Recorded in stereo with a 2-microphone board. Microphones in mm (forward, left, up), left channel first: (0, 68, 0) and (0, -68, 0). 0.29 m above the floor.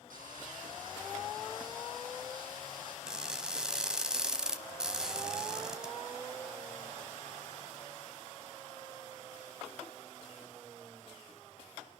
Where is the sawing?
85° right, 8 m.